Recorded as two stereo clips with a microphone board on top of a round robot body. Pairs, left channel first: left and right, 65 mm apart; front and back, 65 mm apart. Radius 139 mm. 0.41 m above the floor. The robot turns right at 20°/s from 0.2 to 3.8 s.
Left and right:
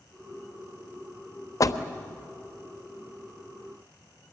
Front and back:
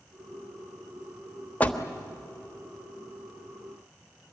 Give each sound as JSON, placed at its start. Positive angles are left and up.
{"t": 1.6, "sound": "a door slam", "azimuth_deg": 65, "distance_m": 1.2}